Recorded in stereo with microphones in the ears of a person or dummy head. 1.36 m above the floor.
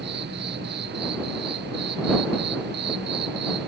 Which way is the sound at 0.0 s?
45° right (ahead or behind).